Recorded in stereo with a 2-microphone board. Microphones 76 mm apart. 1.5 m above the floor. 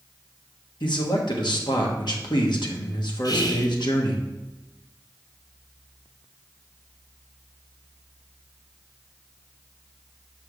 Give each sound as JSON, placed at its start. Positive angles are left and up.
{"t": 0.8, "sound": "a man speaking", "side_deg": 75, "distance_m": 1.5}
{"t": 3.2, "sound": "whispering", "side_deg": 55, "distance_m": 1.2}